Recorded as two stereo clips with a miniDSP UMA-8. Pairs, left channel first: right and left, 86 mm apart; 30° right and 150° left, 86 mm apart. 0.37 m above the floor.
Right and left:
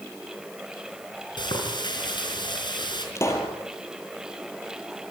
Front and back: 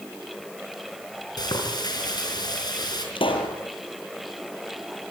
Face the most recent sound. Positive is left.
turn(degrees=-35)